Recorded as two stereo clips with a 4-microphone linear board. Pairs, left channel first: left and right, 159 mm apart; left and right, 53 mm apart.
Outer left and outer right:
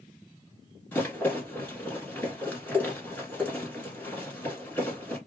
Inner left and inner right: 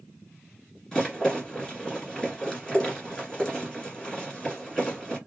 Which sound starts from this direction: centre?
A rattle, at 0.9 s.